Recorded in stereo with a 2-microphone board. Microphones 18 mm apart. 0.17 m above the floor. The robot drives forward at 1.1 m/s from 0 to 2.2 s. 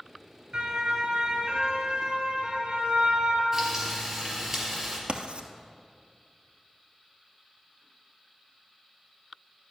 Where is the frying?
20° right (ahead or behind), 3.5 m.